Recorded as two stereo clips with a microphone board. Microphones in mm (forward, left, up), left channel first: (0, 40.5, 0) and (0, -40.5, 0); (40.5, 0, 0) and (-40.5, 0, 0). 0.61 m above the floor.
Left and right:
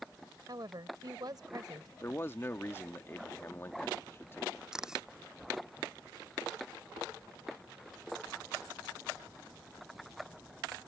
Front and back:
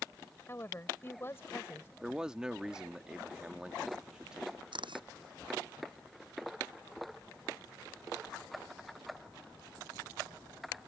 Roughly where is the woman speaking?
Ahead right.